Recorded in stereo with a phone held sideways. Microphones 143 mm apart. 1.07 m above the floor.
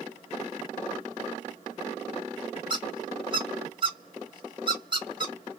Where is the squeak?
35° right (ahead or behind), 1.2 m.